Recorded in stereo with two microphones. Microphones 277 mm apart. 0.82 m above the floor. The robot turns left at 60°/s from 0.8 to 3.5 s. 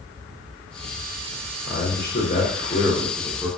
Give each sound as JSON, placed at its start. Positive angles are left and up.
{"t": 1.7, "sound": "a man speaking", "azimuth_deg": 95, "distance_m": 0.6}